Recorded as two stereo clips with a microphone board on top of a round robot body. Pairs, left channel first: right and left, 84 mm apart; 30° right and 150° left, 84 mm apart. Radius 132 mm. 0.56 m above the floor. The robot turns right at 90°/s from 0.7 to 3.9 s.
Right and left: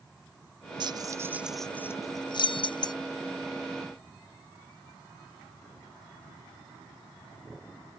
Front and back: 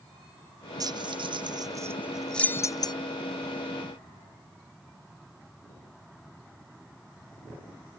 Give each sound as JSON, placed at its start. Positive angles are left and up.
{"t": 0.8, "sound": "keys jangling", "azimuth_deg": 110}